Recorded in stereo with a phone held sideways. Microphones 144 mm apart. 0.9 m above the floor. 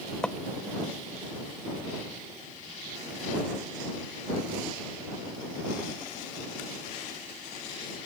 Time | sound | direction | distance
0.2 | footsteps | 5° left (ahead or behind) | ?